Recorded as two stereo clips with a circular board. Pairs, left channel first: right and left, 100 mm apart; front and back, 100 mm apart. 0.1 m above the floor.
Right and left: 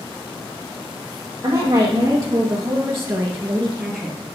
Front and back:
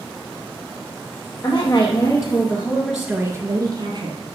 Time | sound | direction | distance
1.4 | a woman speaking | 35° left | 3 m